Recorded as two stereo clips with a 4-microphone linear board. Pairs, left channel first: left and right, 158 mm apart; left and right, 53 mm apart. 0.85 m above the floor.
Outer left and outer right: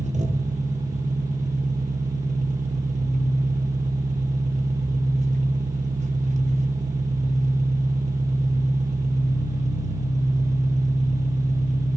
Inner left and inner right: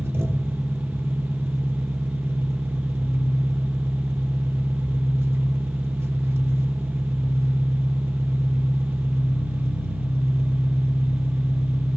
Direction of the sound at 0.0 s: 50° right (ahead or behind).